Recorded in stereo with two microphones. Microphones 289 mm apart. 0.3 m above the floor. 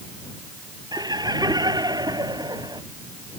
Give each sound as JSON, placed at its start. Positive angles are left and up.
{"t": 0.9, "sound": "laughter", "side_deg": -15}